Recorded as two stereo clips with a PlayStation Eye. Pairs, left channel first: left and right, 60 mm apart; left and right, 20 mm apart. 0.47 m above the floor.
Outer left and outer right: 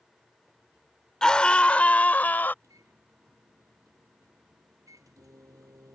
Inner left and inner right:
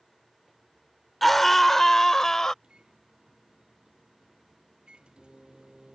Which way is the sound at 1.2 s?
10° left (ahead or behind).